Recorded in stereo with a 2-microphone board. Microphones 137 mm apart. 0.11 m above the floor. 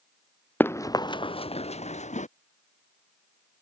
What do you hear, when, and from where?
0.6 s running footsteps: 15° left (ahead or behind); by 2.3 s 60° left (ahead or behind)